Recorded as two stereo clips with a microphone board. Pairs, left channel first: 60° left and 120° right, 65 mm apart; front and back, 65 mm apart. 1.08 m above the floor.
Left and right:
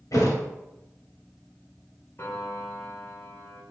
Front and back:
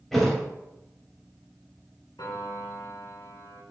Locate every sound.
0.1 s a thud: 85° left, 2.5 m
2.2 s a piano: 10° left, 2 m